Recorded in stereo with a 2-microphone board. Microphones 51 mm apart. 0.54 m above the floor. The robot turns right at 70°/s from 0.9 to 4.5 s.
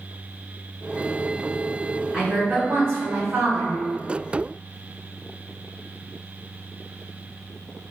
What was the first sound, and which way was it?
A woman speaking, 165° right.